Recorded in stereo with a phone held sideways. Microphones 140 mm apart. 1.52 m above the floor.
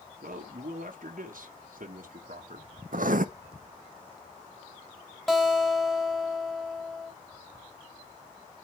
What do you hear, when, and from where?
0.2 s a man speaking: 75° right (ahead or behind), 1.4 m
2.9 s writing: 70° right (ahead or behind), 0.6 m
5.3 s a guitar: 5° left (ahead or behind), 1.6 m